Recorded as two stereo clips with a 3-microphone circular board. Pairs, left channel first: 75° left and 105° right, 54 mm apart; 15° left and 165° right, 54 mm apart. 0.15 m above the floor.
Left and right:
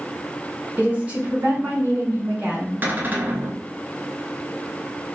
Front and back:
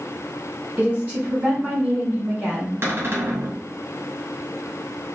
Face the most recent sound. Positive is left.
turn(degrees=-145)